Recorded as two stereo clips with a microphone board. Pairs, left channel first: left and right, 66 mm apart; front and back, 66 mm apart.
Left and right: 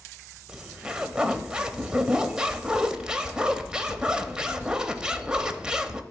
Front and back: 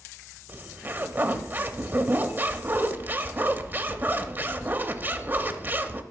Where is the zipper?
155° right, 0.6 m.